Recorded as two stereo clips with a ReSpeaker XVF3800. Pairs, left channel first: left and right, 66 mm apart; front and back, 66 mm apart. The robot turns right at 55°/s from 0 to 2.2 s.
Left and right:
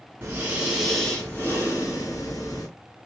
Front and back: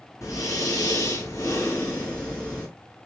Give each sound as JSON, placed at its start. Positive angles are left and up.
{"t": 0.2, "sound": "breathing", "azimuth_deg": -35, "distance_m": 2.5}